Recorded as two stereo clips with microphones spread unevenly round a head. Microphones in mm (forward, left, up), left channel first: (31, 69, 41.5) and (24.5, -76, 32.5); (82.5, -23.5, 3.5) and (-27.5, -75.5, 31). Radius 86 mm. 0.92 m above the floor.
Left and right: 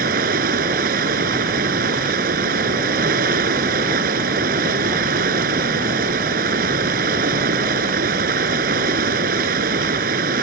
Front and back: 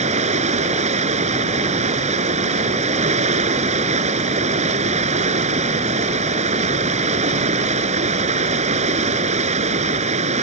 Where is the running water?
130° right.